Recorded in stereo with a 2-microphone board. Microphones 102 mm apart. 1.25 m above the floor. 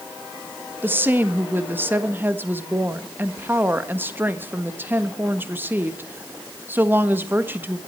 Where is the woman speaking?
20° right (ahead or behind), 1.3 m.